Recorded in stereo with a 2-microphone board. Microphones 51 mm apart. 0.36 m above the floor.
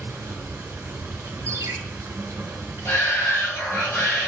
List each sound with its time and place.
0.0 s running water: 55° right (ahead or behind), 1.8 m
1.5 s a ringtone: 70° right (ahead or behind), 1.6 m
2.9 s a shout: 55° left (ahead or behind), 2.5 m